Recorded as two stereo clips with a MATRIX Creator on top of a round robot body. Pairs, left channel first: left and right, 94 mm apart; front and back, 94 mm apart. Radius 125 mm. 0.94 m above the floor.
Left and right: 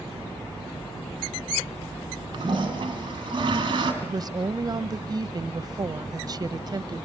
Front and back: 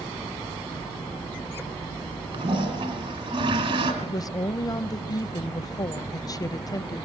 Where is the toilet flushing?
140° right, 2.5 m.